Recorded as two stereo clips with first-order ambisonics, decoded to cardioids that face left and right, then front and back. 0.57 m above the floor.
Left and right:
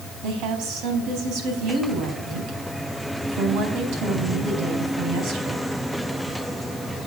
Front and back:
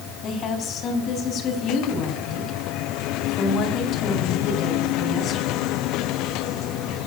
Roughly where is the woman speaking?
Ahead right.